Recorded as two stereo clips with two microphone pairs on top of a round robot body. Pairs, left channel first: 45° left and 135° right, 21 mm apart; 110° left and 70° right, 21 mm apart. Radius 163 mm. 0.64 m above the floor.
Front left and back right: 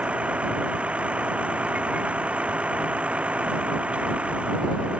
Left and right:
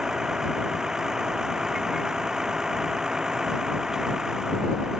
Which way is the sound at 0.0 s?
130° right.